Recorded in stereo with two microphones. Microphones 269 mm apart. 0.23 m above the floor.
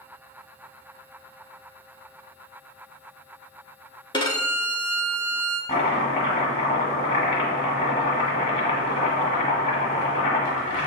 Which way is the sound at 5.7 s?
25° left (ahead or behind).